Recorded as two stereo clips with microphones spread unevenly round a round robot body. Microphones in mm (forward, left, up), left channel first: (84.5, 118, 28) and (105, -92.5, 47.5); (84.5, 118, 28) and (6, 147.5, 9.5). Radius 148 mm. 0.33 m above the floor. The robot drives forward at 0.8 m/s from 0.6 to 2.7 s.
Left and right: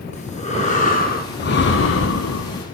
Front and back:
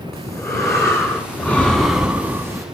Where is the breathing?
35° left, 1.7 m; by 2.6 s 105° left, 1.1 m.